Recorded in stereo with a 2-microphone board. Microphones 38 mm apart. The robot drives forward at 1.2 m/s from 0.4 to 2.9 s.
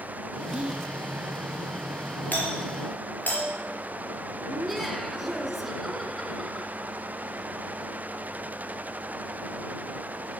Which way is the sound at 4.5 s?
Centre (ahead or behind).